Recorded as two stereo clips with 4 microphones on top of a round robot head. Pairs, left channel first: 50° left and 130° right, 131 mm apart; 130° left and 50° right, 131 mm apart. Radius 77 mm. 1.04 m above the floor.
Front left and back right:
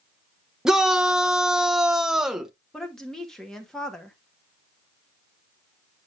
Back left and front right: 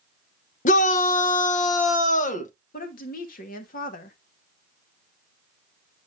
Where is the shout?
145° left, 0.8 m.